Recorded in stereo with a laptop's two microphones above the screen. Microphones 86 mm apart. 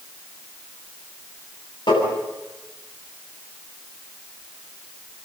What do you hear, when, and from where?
1.9 s tapping: 55° left (ahead or behind), 9.5 m